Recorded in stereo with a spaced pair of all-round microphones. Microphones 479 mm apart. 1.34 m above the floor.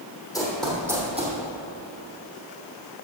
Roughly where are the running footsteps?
Centre.